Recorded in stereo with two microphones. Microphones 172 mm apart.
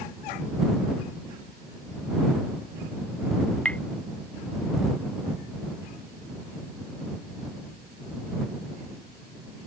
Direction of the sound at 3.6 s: 5° left (ahead or behind).